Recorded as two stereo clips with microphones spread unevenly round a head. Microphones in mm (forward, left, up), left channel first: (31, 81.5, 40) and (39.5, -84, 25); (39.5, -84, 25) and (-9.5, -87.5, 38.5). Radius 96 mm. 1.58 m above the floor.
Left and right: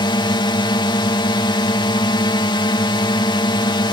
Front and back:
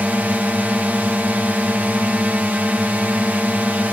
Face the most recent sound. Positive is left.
turn(degrees=130)